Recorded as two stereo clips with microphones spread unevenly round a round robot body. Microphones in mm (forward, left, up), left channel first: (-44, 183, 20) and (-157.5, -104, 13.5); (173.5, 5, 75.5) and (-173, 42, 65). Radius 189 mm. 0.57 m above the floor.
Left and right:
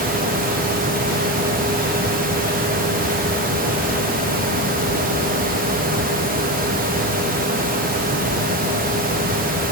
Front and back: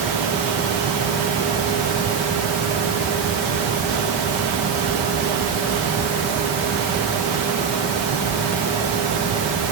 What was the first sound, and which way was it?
Only background noise.